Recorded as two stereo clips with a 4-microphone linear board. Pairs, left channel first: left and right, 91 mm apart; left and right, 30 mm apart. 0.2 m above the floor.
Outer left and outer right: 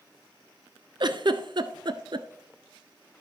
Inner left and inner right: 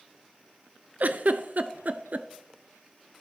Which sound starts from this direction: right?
A giggle, at 1.0 s.